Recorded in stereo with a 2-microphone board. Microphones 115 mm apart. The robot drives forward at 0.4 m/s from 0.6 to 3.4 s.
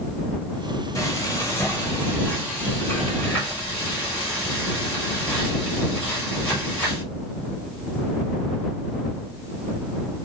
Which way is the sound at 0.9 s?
30° left (ahead or behind).